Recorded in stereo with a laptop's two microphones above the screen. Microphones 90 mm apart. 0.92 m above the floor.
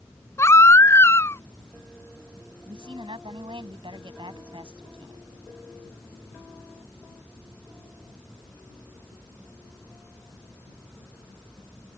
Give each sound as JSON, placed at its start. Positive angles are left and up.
{"t": 0.4, "sound": "a baby crying", "side_deg": 35}
{"t": 2.6, "sound": "a woman speaking", "side_deg": -80}